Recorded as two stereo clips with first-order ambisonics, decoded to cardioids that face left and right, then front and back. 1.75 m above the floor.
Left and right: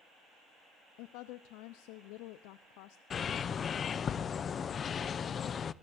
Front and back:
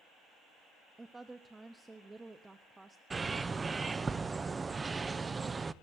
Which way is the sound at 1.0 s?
100° left.